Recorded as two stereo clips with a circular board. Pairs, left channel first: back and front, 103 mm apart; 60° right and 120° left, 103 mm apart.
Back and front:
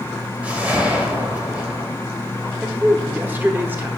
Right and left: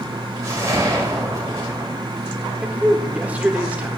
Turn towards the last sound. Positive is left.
turn(degrees=55)